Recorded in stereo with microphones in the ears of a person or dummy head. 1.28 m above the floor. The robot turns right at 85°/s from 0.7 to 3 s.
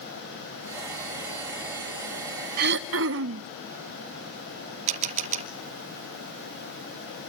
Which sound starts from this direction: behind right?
Throat clearing, at 2.6 s.